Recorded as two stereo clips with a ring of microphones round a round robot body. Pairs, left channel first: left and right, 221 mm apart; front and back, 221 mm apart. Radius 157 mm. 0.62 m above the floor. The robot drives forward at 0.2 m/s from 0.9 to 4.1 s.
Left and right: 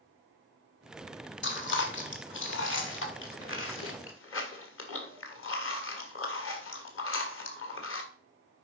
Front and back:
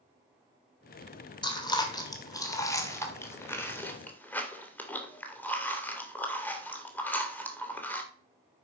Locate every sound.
1.4 s chewing: 70° left, 2.5 m; by 8.0 s 80° left, 2.5 m